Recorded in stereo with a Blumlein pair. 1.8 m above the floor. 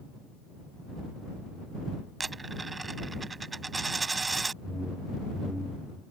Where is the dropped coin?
10° right.